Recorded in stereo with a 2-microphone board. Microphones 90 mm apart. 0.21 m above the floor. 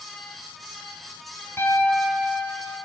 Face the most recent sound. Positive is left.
turn(degrees=25)  # may be behind; listen again after turning